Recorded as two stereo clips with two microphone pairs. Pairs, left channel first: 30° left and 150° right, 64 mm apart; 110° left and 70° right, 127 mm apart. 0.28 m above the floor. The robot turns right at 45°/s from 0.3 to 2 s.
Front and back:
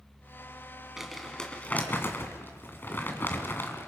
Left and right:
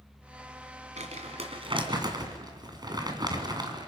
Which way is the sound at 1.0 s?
70° right.